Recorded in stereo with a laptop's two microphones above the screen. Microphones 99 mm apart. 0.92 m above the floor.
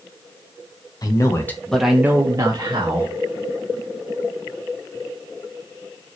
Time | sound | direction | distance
1.0 | a man speaking | 40° left (ahead or behind) | 0.7 m